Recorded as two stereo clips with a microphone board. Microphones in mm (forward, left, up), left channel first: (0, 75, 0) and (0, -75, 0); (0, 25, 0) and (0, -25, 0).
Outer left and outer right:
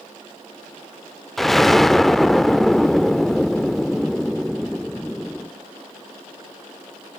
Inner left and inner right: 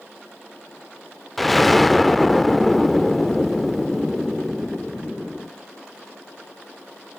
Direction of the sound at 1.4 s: Centre (ahead or behind).